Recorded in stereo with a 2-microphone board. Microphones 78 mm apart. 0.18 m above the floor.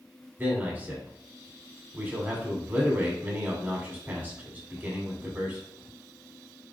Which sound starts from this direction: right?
A man speaking, at 0.4 s.